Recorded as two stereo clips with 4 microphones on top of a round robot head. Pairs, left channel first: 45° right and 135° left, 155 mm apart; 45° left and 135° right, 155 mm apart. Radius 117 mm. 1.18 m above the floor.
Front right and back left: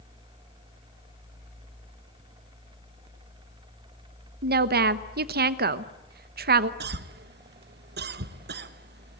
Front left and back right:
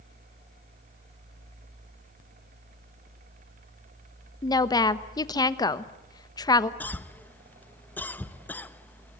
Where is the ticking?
I don't hear ticking.